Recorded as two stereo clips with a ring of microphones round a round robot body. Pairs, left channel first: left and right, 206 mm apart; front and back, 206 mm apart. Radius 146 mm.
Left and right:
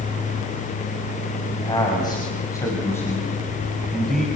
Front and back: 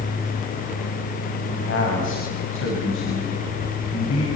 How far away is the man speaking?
About 6 m.